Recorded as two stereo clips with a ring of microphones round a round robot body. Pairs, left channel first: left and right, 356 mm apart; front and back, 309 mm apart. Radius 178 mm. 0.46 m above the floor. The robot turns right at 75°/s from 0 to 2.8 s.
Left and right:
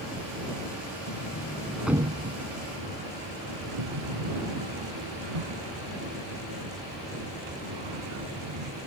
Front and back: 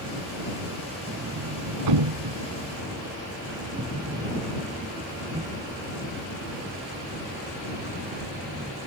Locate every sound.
1.1 s a sliding door: 120° left; by 8.7 s 110° right